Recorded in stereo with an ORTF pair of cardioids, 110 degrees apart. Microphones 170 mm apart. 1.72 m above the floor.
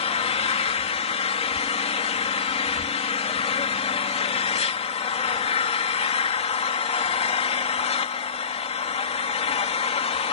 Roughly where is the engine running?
Ahead left.